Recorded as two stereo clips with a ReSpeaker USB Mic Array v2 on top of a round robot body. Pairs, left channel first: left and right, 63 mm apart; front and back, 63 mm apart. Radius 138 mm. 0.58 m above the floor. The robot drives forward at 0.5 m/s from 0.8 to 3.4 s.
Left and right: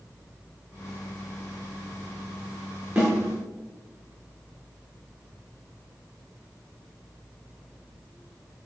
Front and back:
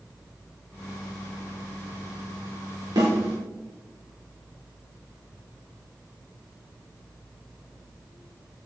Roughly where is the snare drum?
Behind.